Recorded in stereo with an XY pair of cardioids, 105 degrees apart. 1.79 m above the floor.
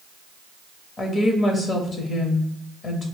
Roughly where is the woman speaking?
Ahead left.